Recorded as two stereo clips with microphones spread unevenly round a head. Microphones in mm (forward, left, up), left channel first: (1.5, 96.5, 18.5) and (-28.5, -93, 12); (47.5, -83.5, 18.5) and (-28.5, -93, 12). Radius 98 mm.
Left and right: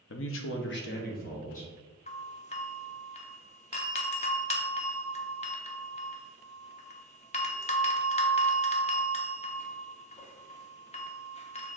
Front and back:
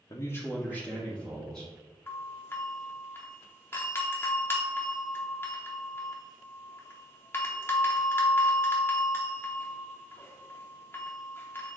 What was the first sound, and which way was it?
A man speaking, 60° left.